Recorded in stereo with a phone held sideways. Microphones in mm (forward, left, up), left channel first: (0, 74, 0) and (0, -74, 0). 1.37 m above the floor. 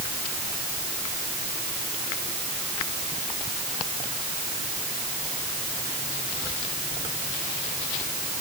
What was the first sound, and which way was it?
Only background noise.